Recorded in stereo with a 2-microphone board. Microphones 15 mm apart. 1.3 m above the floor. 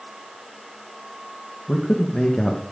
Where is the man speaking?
85° left, 1.3 m.